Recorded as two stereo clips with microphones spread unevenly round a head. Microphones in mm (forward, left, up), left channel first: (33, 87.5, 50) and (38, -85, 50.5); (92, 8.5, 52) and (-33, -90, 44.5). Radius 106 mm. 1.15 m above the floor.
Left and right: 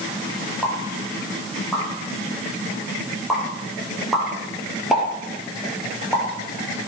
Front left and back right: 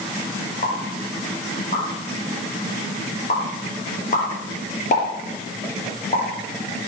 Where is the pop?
Straight ahead, 5 m.